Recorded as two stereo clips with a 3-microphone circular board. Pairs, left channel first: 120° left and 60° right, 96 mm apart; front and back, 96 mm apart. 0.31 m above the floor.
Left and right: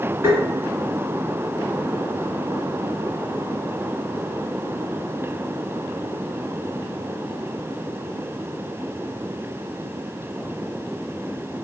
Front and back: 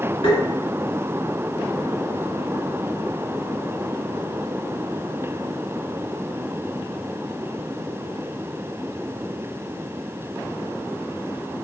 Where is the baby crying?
No baby crying in this recording.